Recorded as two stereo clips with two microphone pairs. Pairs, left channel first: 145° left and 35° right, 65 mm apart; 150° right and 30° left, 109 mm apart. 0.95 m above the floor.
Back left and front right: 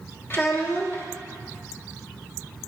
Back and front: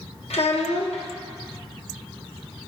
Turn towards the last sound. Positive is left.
turn(degrees=-165)